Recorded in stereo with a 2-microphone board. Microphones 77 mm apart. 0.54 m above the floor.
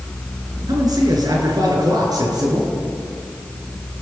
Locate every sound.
0.7 s a man speaking: 55° right (ahead or behind), 7.5 m; by 2.7 s 60° right (ahead or behind), 9.5 m